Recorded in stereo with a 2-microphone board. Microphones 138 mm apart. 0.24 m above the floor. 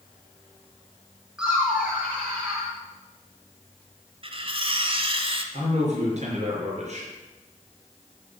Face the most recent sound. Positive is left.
turn(degrees=-55)  # may be behind; listen again after turning